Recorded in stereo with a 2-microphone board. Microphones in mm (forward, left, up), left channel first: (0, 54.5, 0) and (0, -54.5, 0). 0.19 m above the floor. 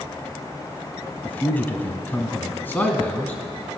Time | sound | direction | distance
1.2 | a man speaking | 15° left (ahead or behind) | 1.0 m